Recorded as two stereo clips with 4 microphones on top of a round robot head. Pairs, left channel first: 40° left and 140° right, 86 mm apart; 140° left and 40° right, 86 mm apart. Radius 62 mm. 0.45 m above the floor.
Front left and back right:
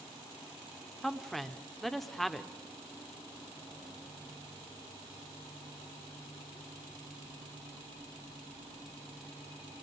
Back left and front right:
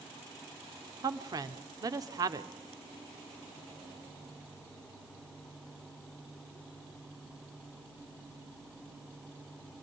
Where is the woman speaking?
50° right, 1.1 m.